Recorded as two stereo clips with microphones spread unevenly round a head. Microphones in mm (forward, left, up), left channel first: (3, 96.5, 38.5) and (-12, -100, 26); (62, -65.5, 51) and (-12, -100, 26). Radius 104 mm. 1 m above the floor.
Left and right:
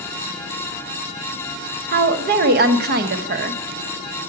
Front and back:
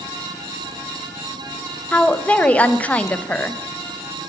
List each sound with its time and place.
1.9 s a woman speaking: 55° right, 0.9 m